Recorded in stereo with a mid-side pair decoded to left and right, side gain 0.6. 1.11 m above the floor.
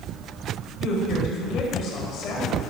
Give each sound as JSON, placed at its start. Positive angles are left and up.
{"t": 0.8, "sound": "a woman speaking", "azimuth_deg": 55, "distance_m": 6.0}